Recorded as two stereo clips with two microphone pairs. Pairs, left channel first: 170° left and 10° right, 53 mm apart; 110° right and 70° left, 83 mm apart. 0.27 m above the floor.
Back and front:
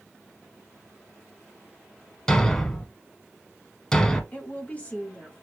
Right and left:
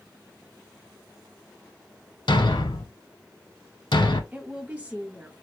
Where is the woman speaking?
130° left, 1.2 m.